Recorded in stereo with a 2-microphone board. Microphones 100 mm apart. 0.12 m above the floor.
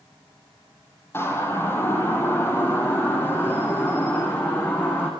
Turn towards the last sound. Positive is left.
turn(degrees=20)  # may be behind; listen again after turning